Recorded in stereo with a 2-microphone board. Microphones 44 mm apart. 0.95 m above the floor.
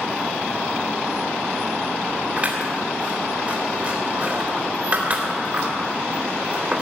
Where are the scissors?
35° right (ahead or behind), 3 m.